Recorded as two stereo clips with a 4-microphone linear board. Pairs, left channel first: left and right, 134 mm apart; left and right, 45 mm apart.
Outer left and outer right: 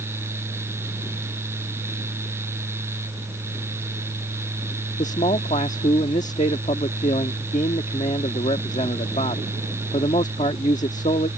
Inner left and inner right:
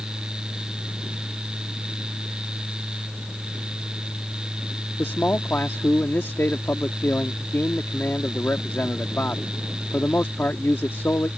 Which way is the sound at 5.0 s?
60° left (ahead or behind).